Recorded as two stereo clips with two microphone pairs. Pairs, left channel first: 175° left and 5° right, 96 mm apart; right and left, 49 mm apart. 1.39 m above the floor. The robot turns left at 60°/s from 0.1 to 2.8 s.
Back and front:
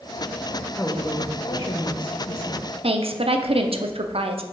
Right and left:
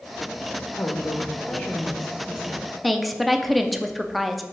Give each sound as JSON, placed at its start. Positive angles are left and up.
{"t": 0.8, "sound": "a woman speaking", "azimuth_deg": -100, "distance_m": 1.1}
{"t": 2.8, "sound": "a woman speaking", "azimuth_deg": 0, "distance_m": 0.6}